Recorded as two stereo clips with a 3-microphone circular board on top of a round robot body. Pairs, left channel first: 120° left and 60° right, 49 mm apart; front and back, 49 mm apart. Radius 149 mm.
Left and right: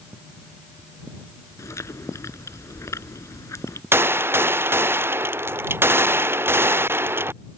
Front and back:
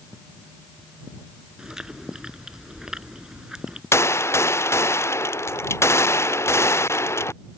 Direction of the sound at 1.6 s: 100° left.